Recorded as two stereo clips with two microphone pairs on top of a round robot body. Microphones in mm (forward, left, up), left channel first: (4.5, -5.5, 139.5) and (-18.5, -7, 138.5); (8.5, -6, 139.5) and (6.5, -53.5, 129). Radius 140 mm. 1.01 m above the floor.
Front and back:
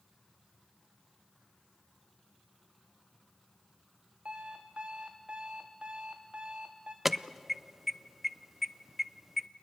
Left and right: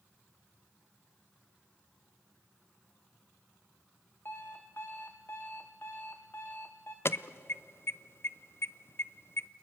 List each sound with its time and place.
4.2 s an alarm clock: 125° left, 0.6 m
7.0 s an alarm: 105° left, 0.7 m